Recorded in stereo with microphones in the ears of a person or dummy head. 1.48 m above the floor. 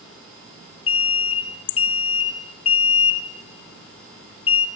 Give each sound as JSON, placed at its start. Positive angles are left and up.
{"t": 0.9, "sound": "an alarm", "side_deg": 30, "distance_m": 1.2}